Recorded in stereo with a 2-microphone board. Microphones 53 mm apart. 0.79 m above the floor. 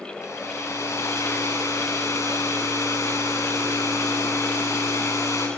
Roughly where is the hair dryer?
Left.